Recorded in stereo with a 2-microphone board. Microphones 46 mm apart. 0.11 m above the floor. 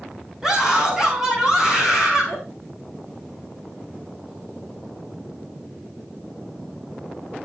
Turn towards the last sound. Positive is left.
turn(degrees=-10)  # may be behind; listen again after turning